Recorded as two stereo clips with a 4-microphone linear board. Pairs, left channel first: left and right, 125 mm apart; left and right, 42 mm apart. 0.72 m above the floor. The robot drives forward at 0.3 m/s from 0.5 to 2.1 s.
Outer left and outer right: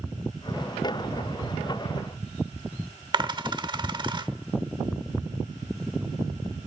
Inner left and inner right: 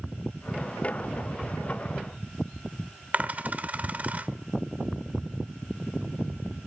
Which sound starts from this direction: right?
A dropped coin, at 3.1 s.